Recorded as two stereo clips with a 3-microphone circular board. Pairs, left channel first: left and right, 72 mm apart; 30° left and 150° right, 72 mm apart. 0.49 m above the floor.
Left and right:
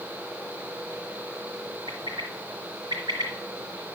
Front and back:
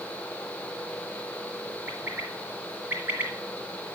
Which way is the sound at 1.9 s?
90° right.